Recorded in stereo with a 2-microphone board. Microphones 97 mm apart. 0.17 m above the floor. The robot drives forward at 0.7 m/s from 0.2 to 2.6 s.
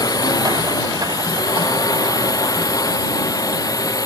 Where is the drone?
40° left (ahead or behind).